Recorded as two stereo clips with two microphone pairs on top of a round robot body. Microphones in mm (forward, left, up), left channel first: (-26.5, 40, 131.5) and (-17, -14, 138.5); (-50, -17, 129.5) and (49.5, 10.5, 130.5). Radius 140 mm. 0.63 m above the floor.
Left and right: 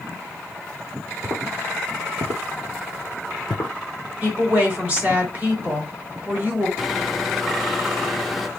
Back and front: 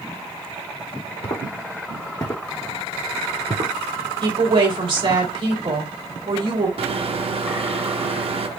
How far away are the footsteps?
About 1.2 m.